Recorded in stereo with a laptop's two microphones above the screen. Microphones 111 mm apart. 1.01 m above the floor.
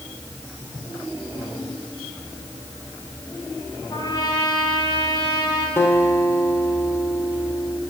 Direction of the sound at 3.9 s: 45° left (ahead or behind).